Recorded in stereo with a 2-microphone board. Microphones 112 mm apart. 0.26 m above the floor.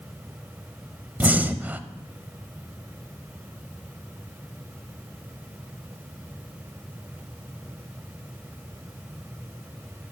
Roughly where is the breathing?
Centre.